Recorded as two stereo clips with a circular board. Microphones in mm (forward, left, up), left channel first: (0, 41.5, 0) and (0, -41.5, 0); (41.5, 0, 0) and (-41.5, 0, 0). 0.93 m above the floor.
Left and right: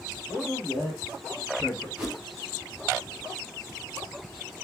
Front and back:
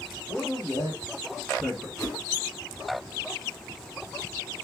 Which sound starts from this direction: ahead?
A whoosh, at 2.0 s.